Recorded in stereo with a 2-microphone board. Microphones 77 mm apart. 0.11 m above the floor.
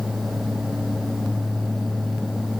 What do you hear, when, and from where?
Only background noise.